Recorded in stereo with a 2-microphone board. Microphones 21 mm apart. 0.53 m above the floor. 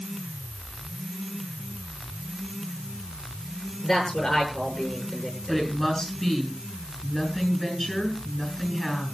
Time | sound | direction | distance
0.0 | an insect | 55° left (ahead or behind) | 3.5 m
3.8 | a man speaking | 35° left (ahead or behind) | 8 m
5.5 | a woman speaking | 20° left (ahead or behind) | 6.5 m